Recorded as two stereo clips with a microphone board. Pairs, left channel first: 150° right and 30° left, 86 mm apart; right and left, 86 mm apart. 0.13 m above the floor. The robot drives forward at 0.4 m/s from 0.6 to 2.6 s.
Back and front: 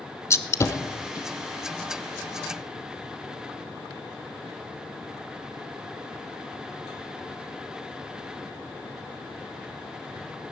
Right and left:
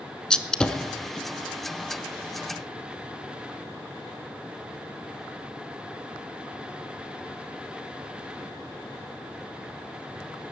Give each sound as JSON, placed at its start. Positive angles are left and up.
{"t": 0.3, "sound": "a gunshot", "azimuth_deg": -165, "distance_m": 0.8}